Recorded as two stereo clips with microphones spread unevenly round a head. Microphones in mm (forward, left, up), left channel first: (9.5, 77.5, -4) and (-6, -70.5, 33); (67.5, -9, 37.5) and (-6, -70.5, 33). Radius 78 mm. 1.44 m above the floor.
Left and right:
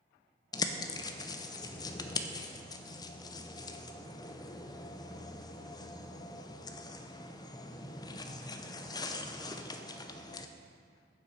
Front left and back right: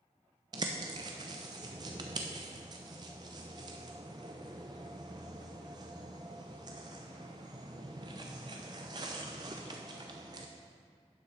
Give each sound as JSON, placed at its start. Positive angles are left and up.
{"t": 0.5, "sound": "a bird", "azimuth_deg": 155, "distance_m": 0.5}